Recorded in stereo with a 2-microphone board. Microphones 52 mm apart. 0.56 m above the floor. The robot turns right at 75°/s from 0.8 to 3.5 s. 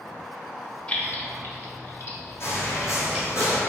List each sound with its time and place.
0.9 s keys jangling: 20° left (ahead or behind), 0.7 m; by 3.3 s 20° right (ahead or behind), 0.7 m
2.4 s footsteps: 55° left (ahead or behind), 1.0 m